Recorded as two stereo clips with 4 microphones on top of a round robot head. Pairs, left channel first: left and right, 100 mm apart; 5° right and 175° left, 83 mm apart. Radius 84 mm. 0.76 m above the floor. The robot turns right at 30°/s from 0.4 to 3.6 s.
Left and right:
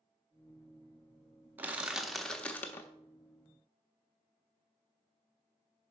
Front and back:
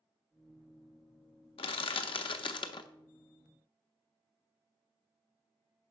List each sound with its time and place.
1.6 s crushing: 15° right, 0.7 m; by 2.9 s 20° left, 0.7 m